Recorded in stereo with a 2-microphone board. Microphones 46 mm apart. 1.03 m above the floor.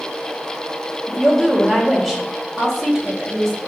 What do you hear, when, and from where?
1.1 s a woman speaking: 5° right (ahead or behind), 1.3 m